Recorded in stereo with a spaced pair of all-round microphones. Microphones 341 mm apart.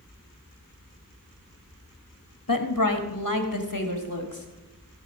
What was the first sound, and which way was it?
A woman speaking, 70° left (ahead or behind).